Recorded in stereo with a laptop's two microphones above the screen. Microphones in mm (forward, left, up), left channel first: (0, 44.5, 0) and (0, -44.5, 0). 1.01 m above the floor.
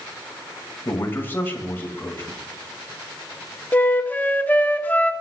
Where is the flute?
20° left (ahead or behind), 1.2 m.